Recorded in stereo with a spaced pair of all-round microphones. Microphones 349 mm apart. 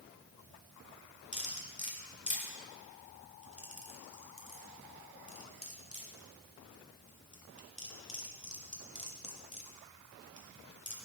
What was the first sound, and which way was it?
Cutlery clinking, 20° left (ahead or behind).